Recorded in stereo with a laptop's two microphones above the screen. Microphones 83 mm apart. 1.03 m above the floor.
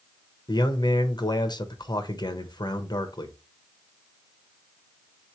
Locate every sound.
0.5 s a man speaking: 60° left (ahead or behind), 0.8 m